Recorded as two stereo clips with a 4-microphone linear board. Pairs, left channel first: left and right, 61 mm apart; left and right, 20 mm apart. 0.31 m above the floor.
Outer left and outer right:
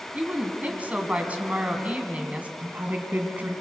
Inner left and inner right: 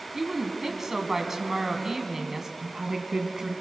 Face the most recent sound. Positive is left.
turn(degrees=-30)  # may be behind; listen again after turning